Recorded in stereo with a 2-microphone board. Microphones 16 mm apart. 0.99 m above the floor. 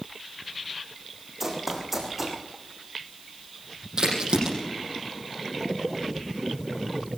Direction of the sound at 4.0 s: 50° right (ahead or behind).